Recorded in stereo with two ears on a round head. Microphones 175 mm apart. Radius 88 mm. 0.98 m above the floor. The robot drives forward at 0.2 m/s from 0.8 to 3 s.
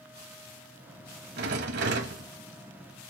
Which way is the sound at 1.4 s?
55° right (ahead or behind).